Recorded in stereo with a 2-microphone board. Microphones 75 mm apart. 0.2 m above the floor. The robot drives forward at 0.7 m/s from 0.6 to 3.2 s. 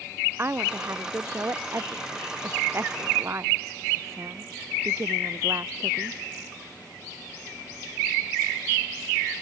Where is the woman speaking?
35° right (ahead or behind); by 6.2 s 40° right (ahead or behind).